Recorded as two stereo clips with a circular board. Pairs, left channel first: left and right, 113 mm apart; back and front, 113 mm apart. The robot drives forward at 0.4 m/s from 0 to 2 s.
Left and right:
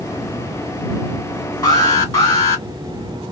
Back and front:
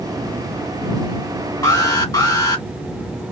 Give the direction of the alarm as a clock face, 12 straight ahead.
8 o'clock.